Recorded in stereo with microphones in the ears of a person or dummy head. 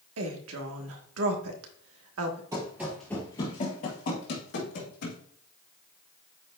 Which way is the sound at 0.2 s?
80° right.